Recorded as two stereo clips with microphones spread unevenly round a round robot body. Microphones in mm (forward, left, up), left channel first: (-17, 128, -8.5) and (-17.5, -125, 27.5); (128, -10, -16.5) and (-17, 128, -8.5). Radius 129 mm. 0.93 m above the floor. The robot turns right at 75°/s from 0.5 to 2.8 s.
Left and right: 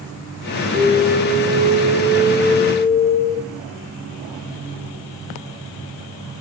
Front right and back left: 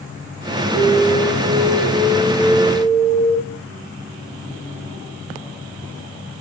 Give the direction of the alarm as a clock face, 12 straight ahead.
12 o'clock.